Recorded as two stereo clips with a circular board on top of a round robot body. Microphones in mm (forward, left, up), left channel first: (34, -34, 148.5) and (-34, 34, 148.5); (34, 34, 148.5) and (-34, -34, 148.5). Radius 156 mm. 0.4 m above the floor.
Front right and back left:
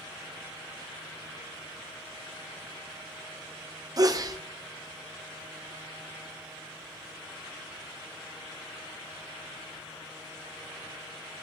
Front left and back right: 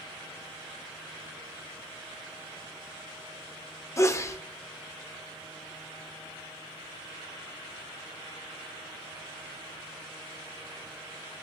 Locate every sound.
4.0 s a sneeze: 95° left, 1.6 m